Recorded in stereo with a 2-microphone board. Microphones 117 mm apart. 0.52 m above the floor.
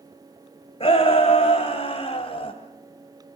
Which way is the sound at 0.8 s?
55° left (ahead or behind).